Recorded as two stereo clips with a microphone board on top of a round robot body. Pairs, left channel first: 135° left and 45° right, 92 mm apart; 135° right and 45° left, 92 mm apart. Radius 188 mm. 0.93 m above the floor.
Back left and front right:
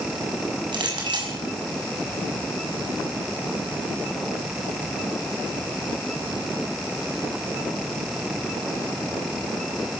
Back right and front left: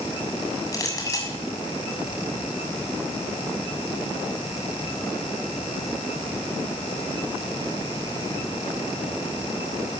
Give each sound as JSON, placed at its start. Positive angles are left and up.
{"t": 0.7, "sound": "a clink", "azimuth_deg": -80, "distance_m": 7.0}